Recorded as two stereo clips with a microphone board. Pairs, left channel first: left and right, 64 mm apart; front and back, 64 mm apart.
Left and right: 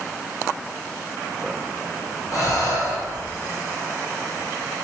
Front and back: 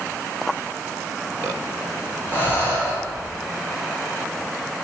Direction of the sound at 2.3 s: 55° left.